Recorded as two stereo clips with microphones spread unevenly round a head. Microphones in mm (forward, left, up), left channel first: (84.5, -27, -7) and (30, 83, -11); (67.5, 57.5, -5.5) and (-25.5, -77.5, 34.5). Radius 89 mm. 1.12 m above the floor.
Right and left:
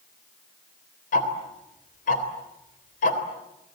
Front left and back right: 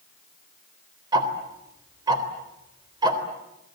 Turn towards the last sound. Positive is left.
turn(degrees=-60)